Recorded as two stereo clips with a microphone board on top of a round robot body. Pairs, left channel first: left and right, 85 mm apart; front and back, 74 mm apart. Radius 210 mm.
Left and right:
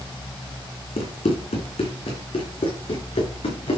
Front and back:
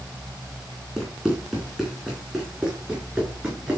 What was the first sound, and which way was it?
Running footsteps, 95° left.